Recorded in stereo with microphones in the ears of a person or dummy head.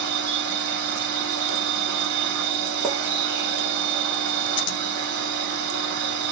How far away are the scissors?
About 0.6 m.